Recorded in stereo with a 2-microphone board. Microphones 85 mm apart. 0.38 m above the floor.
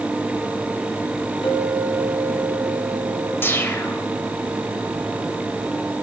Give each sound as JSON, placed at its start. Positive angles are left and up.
{"t": 1.4, "sound": "a clink", "side_deg": 70, "distance_m": 5.0}
{"t": 3.4, "sound": "a whoosh", "side_deg": 25, "distance_m": 1.1}